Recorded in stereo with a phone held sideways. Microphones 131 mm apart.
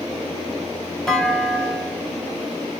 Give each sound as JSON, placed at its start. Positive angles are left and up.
{"t": 1.1, "sound": "a clunk", "side_deg": 5, "distance_m": 0.9}